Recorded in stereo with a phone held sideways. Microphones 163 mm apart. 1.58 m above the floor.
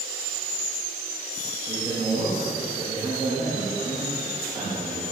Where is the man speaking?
20° right (ahead or behind), 3 m.